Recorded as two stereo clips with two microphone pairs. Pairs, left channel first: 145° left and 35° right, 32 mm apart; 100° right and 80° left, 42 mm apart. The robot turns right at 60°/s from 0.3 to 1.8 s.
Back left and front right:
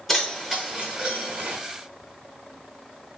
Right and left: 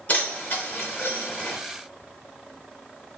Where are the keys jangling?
125° right, 0.8 m; by 1.6 s 50° right, 0.8 m.